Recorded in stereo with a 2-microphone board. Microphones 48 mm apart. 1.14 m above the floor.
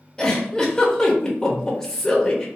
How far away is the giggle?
About 0.7 m.